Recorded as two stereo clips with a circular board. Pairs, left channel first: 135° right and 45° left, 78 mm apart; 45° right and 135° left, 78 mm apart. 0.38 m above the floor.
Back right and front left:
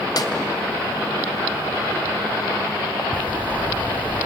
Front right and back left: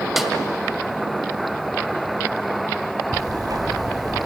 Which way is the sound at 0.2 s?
140° right.